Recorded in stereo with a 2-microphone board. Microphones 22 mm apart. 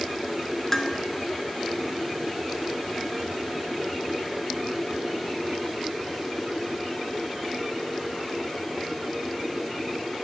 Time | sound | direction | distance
0.7 | dishes clattering | 15° left (ahead or behind) | 0.8 m